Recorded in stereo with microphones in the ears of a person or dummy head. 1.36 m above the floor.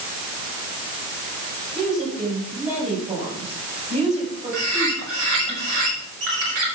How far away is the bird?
About 4.5 m.